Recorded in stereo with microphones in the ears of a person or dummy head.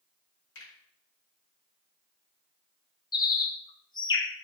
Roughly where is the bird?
Left.